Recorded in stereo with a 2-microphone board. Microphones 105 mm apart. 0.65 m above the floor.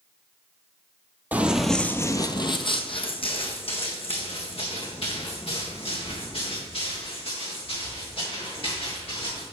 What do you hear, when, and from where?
1.3 s running footsteps: 15° right (ahead or behind), 0.9 m; by 9.4 s 65° left (ahead or behind), 7 m